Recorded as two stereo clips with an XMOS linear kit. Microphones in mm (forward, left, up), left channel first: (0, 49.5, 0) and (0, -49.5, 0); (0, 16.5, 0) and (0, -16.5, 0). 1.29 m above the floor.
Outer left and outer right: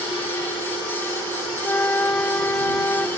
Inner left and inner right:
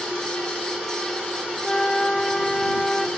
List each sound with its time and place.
1.6 s a flute: 20° left (ahead or behind)